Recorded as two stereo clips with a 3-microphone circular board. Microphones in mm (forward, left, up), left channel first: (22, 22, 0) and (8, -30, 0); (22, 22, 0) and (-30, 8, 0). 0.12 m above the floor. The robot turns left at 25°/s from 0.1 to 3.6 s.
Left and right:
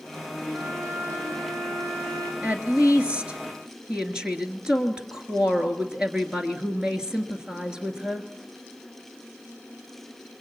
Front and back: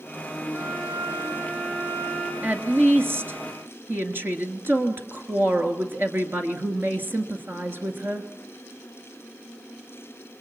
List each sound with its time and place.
0.5 s a violin: 85° right, 6.5 m; by 2.3 s 130° right, 6.5 m
2.4 s a woman speaking: 140° right, 2.0 m; by 8.3 s 170° right, 2.0 m